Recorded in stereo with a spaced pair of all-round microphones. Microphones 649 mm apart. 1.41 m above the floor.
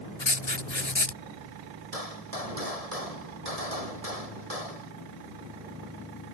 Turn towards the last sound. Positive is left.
turn(degrees=-65)  # may be behind; listen again after turning